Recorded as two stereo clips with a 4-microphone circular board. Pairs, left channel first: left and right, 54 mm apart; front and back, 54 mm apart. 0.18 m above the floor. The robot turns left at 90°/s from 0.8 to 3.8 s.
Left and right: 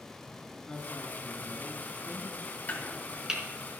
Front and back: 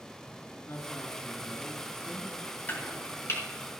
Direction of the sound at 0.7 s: 10° left.